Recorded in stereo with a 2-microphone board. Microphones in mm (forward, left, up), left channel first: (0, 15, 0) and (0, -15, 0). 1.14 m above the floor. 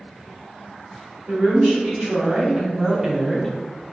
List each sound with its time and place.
1.3 s a woman speaking: 35° right (ahead or behind), 1.5 m; by 3.5 s 15° left (ahead or behind), 0.5 m